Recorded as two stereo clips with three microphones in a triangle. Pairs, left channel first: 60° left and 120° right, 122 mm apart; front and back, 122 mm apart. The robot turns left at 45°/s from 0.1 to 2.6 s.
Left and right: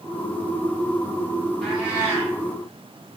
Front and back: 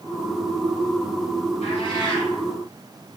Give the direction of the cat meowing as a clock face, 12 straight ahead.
1 o'clock.